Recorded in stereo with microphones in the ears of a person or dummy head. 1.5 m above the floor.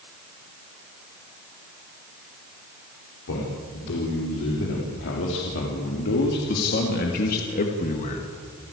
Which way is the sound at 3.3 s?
80° left.